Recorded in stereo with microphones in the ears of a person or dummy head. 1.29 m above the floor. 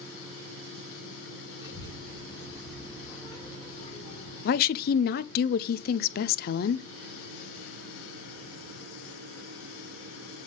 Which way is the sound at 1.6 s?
20° right (ahead or behind).